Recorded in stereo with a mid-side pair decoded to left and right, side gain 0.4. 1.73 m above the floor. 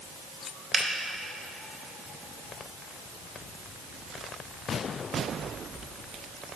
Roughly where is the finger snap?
Ahead right.